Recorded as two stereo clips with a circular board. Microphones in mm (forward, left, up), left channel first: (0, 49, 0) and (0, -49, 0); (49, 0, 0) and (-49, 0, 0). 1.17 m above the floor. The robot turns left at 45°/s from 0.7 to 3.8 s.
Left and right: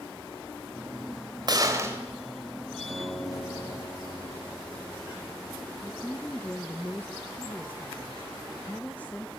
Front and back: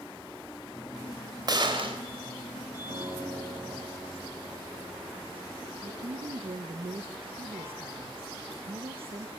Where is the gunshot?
135° right, 3 m; by 2.0 s 155° right, 3 m.